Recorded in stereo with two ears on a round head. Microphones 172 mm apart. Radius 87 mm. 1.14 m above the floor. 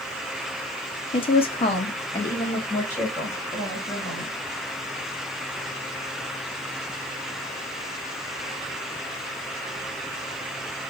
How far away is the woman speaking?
About 0.6 m.